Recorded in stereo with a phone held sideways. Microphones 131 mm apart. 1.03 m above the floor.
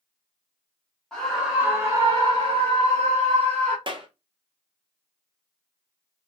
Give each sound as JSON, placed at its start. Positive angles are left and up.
{"t": 1.1, "sound": "a scream", "side_deg": 5, "distance_m": 0.9}
{"t": 3.9, "sound": "a clap", "side_deg": -40, "distance_m": 0.7}